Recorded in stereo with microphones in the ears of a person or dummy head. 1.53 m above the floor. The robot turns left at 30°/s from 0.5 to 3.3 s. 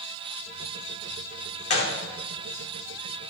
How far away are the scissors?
No scissors in this recording.